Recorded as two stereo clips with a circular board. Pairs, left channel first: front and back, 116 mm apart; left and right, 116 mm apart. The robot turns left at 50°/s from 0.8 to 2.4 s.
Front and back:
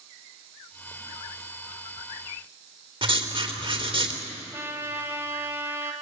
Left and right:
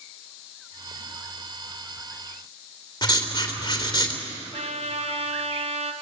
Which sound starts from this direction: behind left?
Writing, at 3.0 s.